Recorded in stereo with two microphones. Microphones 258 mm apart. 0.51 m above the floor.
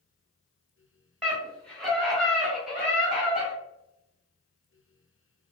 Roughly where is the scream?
Centre.